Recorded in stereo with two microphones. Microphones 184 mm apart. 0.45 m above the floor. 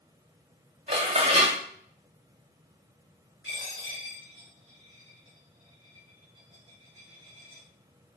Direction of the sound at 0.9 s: 30° right (ahead or behind).